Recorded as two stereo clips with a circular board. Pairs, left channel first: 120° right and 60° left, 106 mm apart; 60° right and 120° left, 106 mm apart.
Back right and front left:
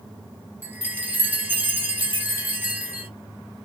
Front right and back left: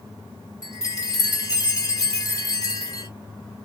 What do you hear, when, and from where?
0.6 s a chime: 10° right, 2 m